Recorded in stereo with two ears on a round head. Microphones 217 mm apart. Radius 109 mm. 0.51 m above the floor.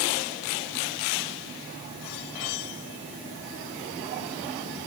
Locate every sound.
Only background noise.